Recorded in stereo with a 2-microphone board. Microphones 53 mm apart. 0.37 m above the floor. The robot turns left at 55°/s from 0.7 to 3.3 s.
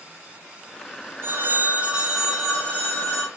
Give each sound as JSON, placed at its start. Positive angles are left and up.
{"t": 1.2, "sound": "a phone ringing", "azimuth_deg": -115, "distance_m": 1.0}